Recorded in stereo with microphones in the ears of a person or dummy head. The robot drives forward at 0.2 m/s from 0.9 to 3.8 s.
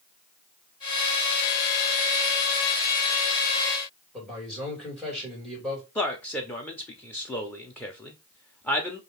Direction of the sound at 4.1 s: 5° left (ahead or behind).